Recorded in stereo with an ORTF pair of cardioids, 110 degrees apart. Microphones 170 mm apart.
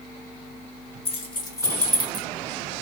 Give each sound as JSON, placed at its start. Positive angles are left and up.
{"t": 1.1, "sound": "keys jangling", "azimuth_deg": 35, "distance_m": 1.4}